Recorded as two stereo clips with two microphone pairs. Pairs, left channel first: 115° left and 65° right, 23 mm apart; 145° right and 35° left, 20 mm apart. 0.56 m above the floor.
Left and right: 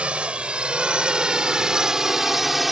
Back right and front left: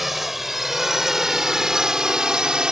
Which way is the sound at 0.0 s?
40° right.